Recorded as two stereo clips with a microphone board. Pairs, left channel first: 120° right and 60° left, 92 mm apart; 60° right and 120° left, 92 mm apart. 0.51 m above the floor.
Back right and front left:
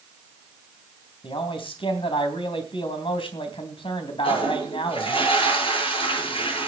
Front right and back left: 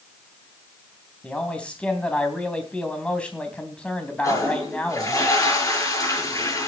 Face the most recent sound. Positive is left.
turn(degrees=-115)